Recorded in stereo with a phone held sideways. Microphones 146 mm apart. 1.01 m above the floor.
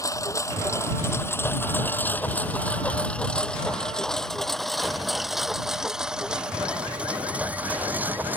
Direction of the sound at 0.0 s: 20° left (ahead or behind).